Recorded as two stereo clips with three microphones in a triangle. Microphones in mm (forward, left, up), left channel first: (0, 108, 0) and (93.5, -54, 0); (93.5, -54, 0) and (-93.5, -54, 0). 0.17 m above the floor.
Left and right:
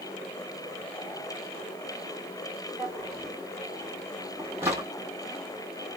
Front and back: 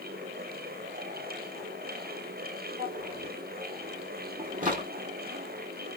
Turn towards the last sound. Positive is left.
turn(degrees=-135)